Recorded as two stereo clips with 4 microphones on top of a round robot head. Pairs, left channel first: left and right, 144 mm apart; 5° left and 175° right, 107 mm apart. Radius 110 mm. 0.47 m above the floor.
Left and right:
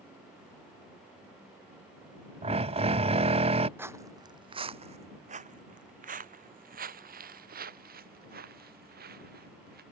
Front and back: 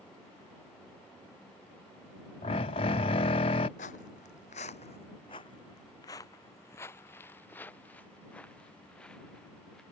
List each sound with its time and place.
2.4 s a drill: 40° right
3.8 s footsteps: 15° right; by 9.8 s 80° right